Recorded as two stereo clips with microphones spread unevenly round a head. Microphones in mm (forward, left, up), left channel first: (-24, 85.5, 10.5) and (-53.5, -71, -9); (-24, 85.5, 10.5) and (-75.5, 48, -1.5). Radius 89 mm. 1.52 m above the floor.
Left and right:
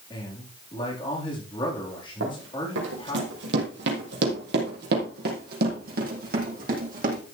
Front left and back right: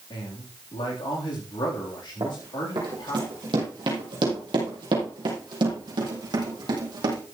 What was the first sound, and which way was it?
A man speaking, 10° left.